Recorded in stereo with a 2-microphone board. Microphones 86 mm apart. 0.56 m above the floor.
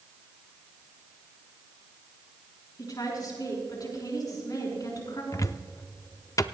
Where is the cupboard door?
40° left (ahead or behind), 0.5 m.